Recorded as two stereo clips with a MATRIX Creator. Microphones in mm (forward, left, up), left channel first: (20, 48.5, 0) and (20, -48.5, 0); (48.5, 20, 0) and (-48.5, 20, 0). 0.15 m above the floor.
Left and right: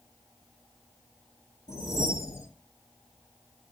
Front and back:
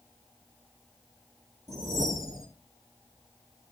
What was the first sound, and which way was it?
A whoosh, 140° left.